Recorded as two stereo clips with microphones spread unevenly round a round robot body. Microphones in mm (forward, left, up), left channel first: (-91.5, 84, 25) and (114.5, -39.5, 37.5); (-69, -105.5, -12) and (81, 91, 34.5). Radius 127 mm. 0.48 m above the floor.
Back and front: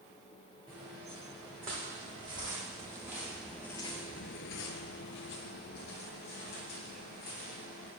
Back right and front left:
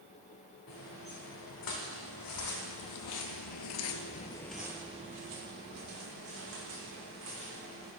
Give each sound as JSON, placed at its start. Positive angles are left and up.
{"t": 0.7, "sound": "footsteps", "azimuth_deg": -100, "distance_m": 2.5}